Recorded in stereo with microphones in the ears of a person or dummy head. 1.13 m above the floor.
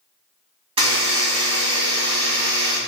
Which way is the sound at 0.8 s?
30° right (ahead or behind).